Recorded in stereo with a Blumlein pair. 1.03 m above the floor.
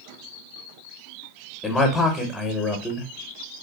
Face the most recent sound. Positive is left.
turn(degrees=10)